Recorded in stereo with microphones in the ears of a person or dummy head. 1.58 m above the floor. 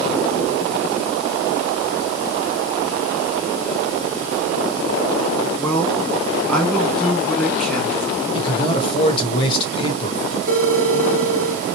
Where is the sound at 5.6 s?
5° left (ahead or behind), 2 m.